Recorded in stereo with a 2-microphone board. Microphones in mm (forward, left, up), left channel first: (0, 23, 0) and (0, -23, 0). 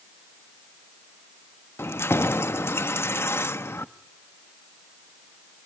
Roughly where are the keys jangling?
Left.